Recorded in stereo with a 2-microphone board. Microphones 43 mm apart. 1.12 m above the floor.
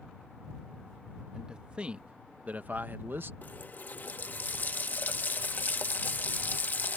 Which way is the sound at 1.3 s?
15° right (ahead or behind).